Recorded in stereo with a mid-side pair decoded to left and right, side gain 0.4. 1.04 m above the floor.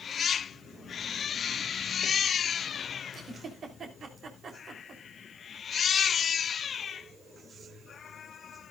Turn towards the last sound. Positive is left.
turn(degrees=-60)